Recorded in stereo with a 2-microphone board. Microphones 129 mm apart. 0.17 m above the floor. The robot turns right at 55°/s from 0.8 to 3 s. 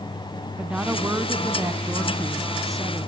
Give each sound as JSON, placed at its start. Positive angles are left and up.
{"t": 0.6, "sound": "a woman speaking", "side_deg": -10, "distance_m": 1.5}